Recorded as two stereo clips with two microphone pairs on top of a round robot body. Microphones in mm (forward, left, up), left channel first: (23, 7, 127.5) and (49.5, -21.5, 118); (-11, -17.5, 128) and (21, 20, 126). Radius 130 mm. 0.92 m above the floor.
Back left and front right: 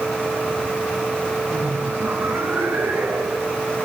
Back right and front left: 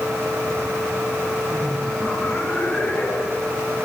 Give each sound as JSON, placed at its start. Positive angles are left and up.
{"t": 1.5, "sound": "laughter", "azimuth_deg": -60, "distance_m": 5.5}